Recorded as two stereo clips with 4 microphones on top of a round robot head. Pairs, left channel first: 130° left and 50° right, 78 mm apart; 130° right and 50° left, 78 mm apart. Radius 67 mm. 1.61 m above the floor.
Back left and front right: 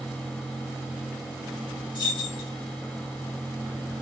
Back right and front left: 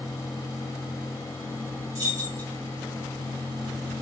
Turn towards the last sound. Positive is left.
turn(degrees=100)